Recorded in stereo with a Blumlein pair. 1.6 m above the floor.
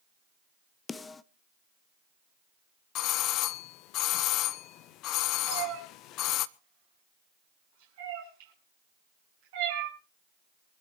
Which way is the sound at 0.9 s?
15° left.